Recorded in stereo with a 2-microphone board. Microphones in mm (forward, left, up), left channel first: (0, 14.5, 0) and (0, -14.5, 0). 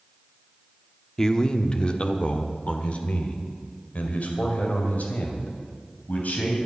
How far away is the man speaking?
About 0.9 m.